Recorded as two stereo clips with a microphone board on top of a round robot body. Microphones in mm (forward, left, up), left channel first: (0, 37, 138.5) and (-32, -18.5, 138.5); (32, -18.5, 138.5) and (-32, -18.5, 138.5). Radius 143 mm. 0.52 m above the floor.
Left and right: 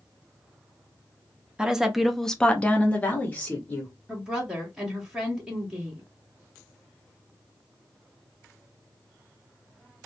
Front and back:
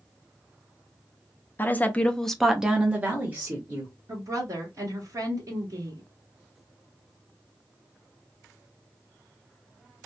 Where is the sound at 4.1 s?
165° left, 1.4 m.